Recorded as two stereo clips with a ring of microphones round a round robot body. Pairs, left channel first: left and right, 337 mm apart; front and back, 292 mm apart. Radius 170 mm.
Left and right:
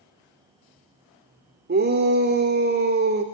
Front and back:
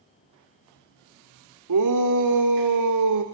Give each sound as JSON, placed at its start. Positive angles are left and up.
{"t": 1.7, "sound": "a shout", "azimuth_deg": -150, "distance_m": 2.0}